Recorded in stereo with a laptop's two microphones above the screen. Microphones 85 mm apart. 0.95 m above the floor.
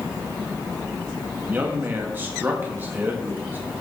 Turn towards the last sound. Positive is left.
turn(degrees=-25)  # may be behind; listen again after turning